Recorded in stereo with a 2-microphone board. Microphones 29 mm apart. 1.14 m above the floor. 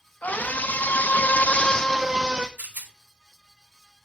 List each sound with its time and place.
0.2 s a scream: 60° left (ahead or behind), 1.9 m; by 2.5 s 25° right (ahead or behind), 1.0 m
2.6 s a rattle: 75° right (ahead or behind), 1.3 m